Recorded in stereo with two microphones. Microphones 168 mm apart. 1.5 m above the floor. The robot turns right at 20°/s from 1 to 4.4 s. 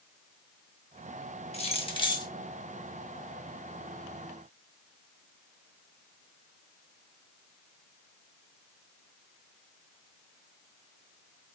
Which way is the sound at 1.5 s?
40° left (ahead or behind).